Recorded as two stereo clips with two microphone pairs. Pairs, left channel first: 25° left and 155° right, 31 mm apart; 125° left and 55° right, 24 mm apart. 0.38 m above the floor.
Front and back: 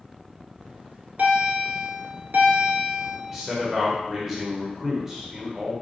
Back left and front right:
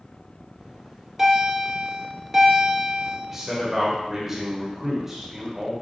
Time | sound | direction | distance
0.6 | a bell | 130° right | 1.1 m
3.3 | a man speaking | 95° right | 1.0 m